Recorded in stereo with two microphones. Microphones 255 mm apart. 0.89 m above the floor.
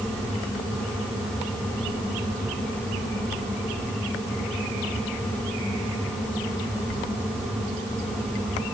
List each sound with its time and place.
Only background noise.